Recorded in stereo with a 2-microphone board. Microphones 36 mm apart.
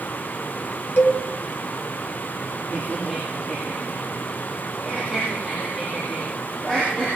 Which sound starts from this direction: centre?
Laughter, at 2.7 s.